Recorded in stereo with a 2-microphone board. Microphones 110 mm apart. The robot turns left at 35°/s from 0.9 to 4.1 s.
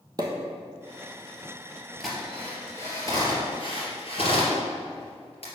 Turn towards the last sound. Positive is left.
turn(degrees=60)  # may be behind; listen again after turning